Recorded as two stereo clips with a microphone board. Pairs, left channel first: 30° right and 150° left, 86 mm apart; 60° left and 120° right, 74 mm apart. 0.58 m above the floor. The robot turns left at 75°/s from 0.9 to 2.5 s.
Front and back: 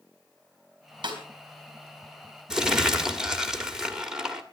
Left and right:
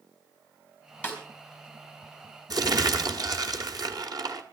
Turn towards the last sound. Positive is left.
turn(degrees=-125)